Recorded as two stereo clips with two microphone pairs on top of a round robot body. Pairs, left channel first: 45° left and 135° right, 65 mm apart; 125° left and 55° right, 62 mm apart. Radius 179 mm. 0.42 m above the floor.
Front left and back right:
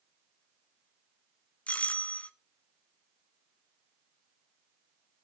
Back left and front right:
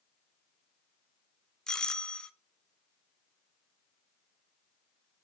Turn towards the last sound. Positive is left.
turn(degrees=75)